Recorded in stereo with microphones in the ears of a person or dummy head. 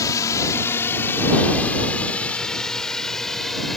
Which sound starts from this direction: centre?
A drone, at 0.0 s.